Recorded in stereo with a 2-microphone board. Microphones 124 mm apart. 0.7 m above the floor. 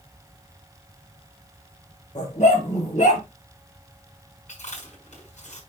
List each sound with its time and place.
2.1 s a dog barking: 85° left, 4.5 m; by 3.2 s 75° left (ahead or behind), 5.5 m
4.5 s chewing: 80° left, 5.5 m